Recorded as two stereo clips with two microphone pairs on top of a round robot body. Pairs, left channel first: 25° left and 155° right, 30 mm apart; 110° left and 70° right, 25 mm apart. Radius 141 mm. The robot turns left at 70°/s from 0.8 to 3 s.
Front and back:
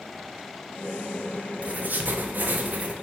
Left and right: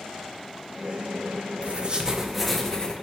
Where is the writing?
110° right, 0.5 m; by 2.9 s 160° left, 0.5 m.